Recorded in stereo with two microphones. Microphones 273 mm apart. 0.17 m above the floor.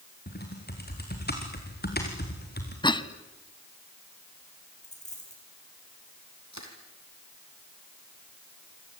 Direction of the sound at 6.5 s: 80° right.